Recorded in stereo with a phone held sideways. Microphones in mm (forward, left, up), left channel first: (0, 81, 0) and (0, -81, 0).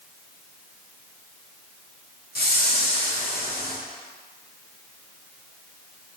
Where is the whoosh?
70° left (ahead or behind), 1.3 m.